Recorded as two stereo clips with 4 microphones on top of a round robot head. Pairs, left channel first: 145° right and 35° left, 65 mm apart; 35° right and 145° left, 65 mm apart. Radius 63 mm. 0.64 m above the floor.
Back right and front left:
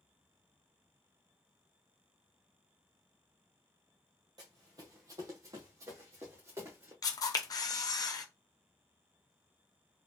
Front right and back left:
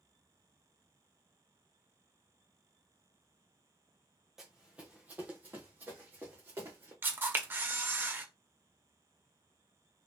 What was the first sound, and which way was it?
Running footsteps, 65° left.